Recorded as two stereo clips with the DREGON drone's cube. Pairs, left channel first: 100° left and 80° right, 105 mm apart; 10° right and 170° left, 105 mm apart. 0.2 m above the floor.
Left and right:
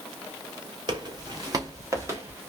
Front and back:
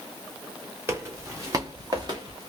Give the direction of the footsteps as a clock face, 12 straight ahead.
4 o'clock.